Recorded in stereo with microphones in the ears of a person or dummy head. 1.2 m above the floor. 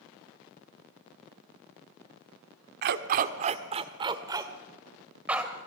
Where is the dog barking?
55° right (ahead or behind), 1.3 m; by 5.5 s 5° right (ahead or behind), 2.5 m.